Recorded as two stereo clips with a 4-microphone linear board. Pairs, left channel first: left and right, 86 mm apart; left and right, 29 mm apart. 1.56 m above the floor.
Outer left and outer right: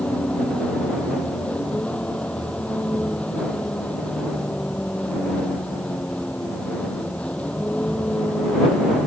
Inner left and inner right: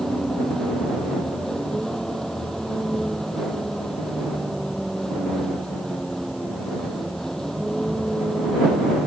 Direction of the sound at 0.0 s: 15° left (ahead or behind).